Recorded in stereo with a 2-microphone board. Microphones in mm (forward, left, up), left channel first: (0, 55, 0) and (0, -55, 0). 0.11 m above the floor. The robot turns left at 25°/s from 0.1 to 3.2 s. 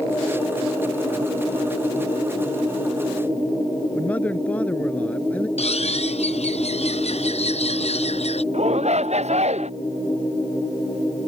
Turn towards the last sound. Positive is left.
turn(degrees=-80)